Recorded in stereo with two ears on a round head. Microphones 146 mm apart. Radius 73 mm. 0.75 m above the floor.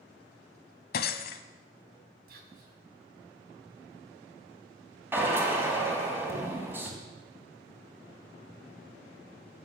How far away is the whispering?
About 4.5 m.